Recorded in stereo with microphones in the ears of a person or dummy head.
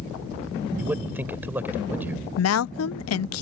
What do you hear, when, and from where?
0.8 s a man speaking: 5° right (ahead or behind)
2.4 s a woman speaking: 85° left